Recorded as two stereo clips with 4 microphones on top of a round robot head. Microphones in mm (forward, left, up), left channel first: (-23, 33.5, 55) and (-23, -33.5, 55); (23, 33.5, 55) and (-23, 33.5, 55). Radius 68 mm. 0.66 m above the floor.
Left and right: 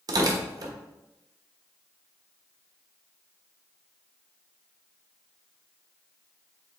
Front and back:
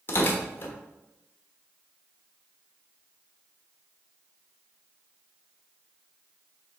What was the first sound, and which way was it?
Tearing paper, 55° right.